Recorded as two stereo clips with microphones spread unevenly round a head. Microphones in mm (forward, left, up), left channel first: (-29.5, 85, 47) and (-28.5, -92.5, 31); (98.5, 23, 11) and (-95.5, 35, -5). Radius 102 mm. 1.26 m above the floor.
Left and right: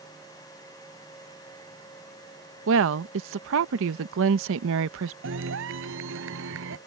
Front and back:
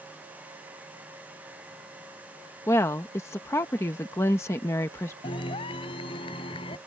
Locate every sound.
2.7 s a woman speaking: 80° right
5.2 s a clap: 70° right